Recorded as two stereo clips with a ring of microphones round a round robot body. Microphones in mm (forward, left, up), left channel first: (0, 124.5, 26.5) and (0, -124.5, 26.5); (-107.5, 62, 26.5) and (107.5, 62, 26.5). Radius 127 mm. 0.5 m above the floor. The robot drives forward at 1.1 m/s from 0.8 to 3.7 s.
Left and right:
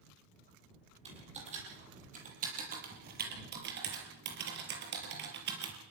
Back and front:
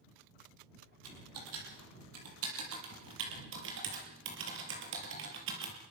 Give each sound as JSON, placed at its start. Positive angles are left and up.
{"t": 1.1, "sound": "typing on a keyboard", "azimuth_deg": -25, "distance_m": 6.5}